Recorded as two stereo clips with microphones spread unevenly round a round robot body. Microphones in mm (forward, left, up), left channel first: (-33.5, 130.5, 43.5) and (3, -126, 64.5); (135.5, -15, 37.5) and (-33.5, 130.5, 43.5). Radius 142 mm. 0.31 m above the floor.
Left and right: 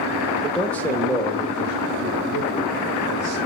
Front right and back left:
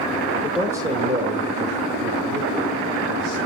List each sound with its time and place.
0.4 s a man speaking: 25° left, 1.2 m; by 3.4 s 175° left, 4.5 m